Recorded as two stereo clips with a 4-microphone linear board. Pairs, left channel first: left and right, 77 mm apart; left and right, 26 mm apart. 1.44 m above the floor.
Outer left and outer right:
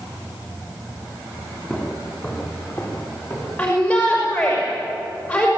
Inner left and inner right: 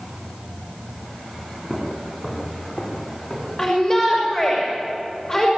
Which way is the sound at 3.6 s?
25° left (ahead or behind).